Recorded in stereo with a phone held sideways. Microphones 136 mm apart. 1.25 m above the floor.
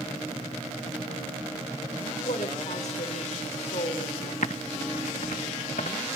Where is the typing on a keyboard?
65° left (ahead or behind), 1.0 m.